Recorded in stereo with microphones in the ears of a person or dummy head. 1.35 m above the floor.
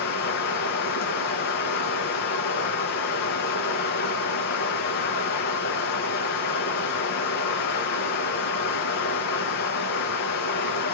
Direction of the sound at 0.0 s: 60° left (ahead or behind).